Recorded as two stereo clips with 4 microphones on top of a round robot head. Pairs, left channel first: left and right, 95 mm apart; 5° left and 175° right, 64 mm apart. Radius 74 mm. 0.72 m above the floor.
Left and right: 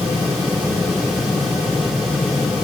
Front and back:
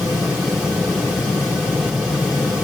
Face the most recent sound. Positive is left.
No sound to turn to.